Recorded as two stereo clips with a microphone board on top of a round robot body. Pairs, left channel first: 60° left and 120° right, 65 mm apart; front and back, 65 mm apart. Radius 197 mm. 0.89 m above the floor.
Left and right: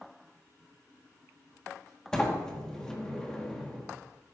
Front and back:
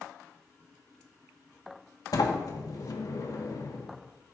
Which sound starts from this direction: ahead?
A sliding door, at 2.1 s.